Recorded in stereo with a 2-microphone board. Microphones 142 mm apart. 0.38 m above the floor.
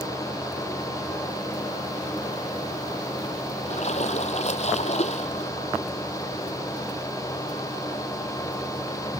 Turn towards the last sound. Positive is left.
turn(degrees=50)  # may be behind; listen again after turning